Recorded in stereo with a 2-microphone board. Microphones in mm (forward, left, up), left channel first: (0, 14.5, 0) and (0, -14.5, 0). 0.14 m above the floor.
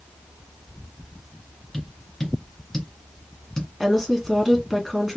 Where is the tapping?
15° left (ahead or behind), 2.5 m.